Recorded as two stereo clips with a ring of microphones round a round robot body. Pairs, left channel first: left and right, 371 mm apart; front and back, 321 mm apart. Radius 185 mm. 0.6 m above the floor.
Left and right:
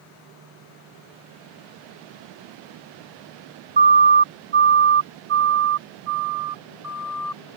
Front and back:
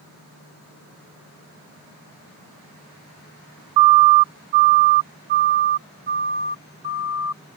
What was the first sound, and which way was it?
A siren, 155° right.